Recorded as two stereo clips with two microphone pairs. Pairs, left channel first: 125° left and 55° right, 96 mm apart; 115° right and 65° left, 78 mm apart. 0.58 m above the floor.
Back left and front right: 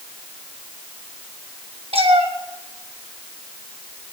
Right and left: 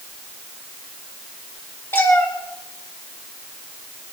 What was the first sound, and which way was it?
A cat meowing, 55° right.